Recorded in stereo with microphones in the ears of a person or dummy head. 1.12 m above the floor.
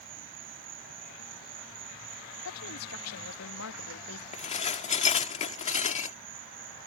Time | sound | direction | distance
0.0 | an insect | 45° right (ahead or behind) | ?
2.5 | a woman speaking | 85° left | ?
4.3 | dishes clattering | 35° left (ahead or behind) | ?